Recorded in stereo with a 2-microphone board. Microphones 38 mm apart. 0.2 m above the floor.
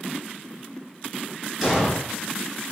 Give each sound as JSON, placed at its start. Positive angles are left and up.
{"t": 1.6, "sound": "an explosion", "side_deg": -5, "distance_m": 1.8}